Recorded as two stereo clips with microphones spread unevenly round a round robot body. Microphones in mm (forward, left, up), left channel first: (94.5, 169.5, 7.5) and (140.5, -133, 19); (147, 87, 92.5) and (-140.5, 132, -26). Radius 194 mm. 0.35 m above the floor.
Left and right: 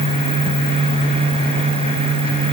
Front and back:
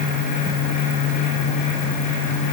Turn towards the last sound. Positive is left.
No sound to turn to.